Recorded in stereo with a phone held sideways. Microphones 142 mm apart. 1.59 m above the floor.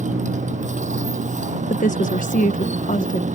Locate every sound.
0.0 s a motorcycle: 60° right (ahead or behind)
1.7 s a woman speaking: 65° left (ahead or behind)